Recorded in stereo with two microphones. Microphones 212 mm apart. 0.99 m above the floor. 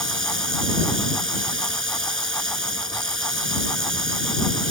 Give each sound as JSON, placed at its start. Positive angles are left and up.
{"t": 0.0, "sound": "running water", "side_deg": -70}